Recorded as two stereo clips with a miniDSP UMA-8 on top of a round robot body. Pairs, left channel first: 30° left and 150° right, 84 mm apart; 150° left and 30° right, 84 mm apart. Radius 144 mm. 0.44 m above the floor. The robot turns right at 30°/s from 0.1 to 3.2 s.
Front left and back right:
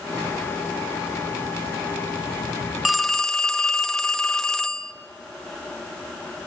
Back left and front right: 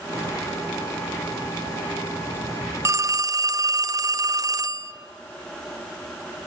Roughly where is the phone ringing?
Ahead right.